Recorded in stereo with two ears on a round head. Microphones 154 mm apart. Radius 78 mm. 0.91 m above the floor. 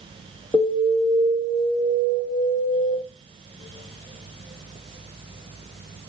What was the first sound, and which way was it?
An alarm, centre (ahead or behind).